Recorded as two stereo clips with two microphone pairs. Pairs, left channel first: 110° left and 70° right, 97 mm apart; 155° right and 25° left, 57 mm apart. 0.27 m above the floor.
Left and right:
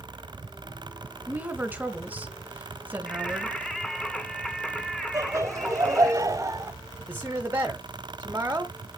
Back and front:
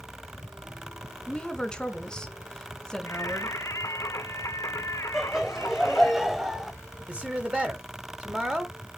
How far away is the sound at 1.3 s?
About 1.4 m.